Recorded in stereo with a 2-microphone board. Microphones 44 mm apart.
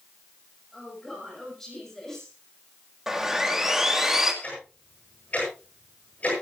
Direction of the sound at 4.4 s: 30° left (ahead or behind).